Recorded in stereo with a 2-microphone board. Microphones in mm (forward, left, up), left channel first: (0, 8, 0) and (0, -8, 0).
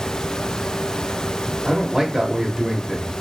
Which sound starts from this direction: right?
A man speaking, at 1.6 s.